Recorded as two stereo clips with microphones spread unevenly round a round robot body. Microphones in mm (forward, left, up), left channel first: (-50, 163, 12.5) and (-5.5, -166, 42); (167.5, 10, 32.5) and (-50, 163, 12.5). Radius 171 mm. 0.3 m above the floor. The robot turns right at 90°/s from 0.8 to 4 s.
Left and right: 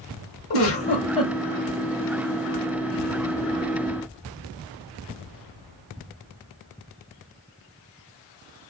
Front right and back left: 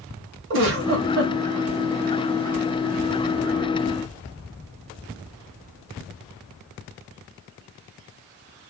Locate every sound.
0.5 s a giggle: 130° left, 1.1 m; by 1.3 s straight behind, 1.1 m